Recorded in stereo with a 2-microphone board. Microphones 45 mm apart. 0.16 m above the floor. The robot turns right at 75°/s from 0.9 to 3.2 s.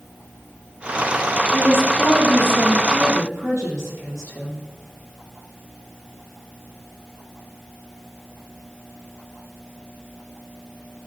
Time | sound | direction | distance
1.5 | a woman speaking | 160° left | 4.5 m